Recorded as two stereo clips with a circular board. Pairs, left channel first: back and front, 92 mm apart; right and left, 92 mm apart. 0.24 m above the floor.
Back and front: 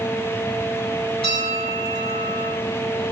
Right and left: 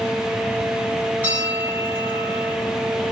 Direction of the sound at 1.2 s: 160° left.